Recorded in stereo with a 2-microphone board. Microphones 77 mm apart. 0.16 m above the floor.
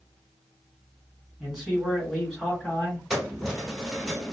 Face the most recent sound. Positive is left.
turn(degrees=-5)  # may be behind; listen again after turning